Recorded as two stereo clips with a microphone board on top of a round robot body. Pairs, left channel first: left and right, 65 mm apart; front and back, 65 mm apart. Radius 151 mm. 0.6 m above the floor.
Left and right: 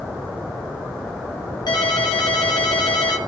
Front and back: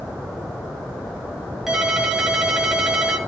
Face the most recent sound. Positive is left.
turn(degrees=95)